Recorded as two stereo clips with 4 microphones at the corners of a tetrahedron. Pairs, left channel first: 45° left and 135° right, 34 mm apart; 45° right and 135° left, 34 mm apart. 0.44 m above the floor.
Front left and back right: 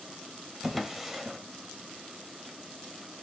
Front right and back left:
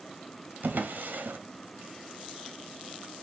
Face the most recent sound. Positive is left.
turn(degrees=145)